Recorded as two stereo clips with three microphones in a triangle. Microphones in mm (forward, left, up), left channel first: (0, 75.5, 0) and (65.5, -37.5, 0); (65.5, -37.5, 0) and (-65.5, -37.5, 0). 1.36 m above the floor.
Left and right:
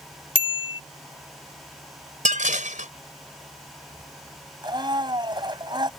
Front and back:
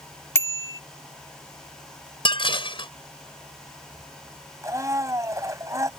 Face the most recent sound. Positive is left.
turn(degrees=-115)